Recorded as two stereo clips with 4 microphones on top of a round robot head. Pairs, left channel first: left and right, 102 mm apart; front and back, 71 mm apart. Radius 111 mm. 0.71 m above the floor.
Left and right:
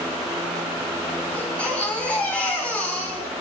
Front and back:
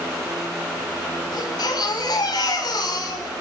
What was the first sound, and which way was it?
A baby crying, 10° left.